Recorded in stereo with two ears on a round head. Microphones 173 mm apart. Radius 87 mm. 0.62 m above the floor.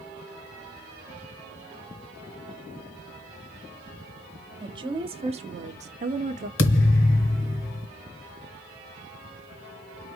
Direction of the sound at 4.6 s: 25° right (ahead or behind).